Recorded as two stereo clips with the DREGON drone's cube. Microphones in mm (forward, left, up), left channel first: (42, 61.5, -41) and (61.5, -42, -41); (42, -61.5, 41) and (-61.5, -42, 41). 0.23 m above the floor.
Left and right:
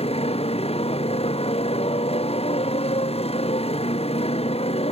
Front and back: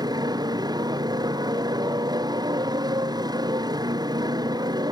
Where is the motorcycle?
120° left.